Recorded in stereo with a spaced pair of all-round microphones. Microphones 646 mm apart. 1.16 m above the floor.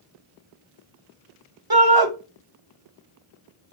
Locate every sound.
1.7 s a shout: 35° right (ahead or behind), 0.9 m